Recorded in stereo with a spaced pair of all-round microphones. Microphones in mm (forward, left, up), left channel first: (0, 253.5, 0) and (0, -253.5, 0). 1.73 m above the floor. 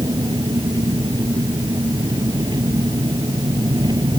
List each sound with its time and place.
0.0 s an engine running: 10° right (ahead or behind)